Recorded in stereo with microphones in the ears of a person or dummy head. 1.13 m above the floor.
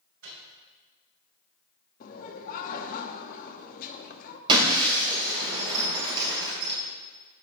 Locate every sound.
0.2 s a microwave: 75° right (ahead or behind), 3 m
2.0 s laughter: 45° left (ahead or behind), 0.8 m
4.5 s breaking glass: 30° right (ahead or behind), 2.5 m